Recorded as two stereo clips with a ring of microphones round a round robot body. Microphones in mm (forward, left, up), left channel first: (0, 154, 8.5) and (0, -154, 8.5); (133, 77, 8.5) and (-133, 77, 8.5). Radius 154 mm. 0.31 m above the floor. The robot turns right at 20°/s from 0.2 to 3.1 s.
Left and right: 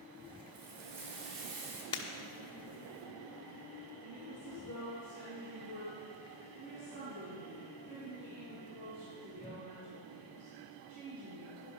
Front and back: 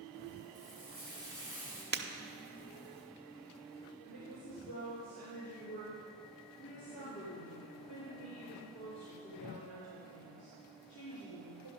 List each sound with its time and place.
0.5 s frying: 115° right, 2 m; by 1.8 s 90° right, 2 m
1.9 s breaking glass: 155° left, 0.8 m; by 2.0 s 160° left, 0.8 m
4.0 s a woman speaking: 70° right, 4 m